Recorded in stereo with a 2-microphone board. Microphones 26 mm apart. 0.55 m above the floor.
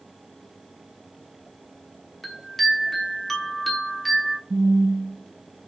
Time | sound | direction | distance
2.2 | a chime | 10° left (ahead or behind) | 1.0 m
4.5 | a phone buzzing | 75° right (ahead or behind) | 0.5 m